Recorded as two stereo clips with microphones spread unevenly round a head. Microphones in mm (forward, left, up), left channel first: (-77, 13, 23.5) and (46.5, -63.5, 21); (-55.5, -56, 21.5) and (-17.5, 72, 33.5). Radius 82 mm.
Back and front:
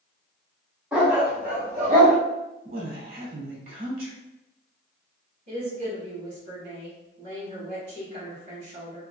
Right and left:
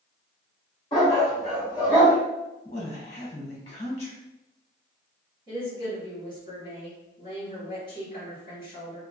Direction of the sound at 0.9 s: 95° right.